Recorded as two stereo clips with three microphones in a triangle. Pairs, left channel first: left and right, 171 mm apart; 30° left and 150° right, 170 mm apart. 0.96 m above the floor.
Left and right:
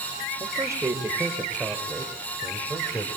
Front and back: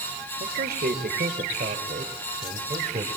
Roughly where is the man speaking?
Behind.